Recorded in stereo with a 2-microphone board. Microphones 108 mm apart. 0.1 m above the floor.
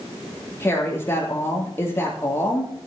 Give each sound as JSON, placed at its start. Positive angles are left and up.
{"t": 0.6, "sound": "a woman speaking", "side_deg": 25, "distance_m": 3.5}